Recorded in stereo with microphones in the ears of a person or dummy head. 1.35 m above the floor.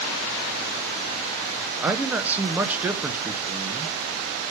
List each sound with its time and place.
1.8 s a man speaking: 10° right (ahead or behind), 0.9 m